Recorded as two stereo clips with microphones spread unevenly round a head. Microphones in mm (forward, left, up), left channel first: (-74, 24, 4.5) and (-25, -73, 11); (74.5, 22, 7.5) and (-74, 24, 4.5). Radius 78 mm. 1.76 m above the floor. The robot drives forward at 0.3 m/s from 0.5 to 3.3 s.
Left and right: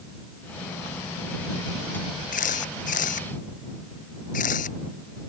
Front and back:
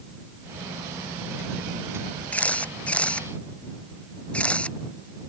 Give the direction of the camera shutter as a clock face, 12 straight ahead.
9 o'clock.